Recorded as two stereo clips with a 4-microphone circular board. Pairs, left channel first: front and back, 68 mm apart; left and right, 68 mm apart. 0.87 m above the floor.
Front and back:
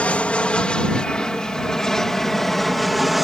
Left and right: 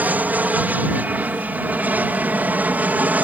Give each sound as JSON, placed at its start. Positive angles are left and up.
{"t": 0.0, "sound": "an aircraft", "azimuth_deg": -50}